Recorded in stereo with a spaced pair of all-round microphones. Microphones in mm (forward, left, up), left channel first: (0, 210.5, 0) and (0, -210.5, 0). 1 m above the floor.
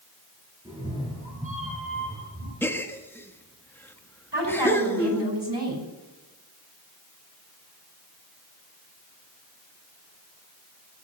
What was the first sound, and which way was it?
A cat meowing, 10° right (ahead or behind).